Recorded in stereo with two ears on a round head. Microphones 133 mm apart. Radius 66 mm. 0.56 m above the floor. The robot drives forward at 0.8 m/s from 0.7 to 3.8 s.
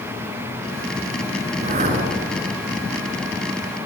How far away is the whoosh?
About 4 m.